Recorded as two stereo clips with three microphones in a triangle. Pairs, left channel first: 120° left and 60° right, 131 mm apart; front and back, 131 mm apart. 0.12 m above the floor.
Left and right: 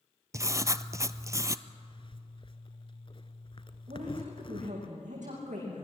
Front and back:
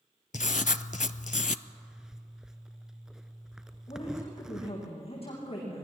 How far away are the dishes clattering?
No dishes clattering in this recording.